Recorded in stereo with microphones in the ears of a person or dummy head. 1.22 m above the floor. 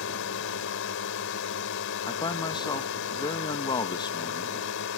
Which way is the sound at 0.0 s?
60° left (ahead or behind).